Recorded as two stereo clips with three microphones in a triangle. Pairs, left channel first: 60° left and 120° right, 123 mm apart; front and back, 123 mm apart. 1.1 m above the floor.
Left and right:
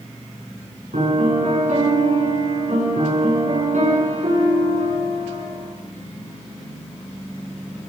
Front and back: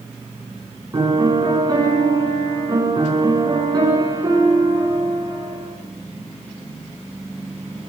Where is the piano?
125° right, 9.5 m.